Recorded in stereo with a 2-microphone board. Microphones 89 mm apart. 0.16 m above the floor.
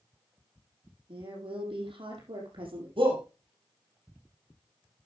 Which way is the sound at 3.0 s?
70° right (ahead or behind).